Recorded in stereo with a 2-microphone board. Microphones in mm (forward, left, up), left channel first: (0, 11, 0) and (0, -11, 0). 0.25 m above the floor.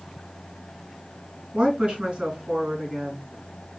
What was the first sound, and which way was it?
A woman speaking, 55° right (ahead or behind).